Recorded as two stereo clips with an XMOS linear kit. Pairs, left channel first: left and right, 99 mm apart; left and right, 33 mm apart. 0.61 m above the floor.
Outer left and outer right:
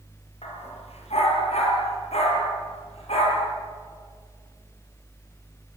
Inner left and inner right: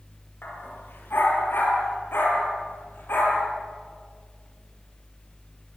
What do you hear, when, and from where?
0.4 s a dog barking: 85° left, 5.5 m